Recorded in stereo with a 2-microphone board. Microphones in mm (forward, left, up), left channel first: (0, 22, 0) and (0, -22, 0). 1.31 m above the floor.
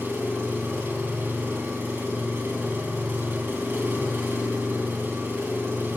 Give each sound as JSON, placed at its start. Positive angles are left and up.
{"t": 0.0, "sound": "an engine running", "side_deg": -50, "distance_m": 3.5}